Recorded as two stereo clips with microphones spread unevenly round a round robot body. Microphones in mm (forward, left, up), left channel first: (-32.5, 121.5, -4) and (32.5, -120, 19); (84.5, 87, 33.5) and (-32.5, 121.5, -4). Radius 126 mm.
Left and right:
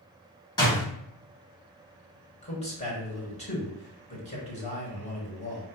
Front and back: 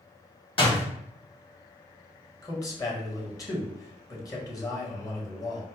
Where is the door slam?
35° left, 1.7 m.